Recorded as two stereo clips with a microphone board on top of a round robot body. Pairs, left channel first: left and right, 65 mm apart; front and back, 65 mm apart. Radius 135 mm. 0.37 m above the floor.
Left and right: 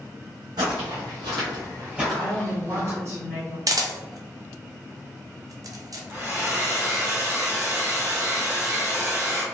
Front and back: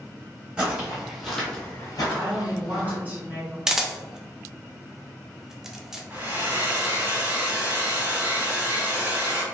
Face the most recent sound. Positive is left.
turn(degrees=-125)